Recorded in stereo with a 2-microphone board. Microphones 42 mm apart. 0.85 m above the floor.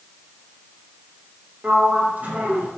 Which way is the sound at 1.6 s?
40° right (ahead or behind).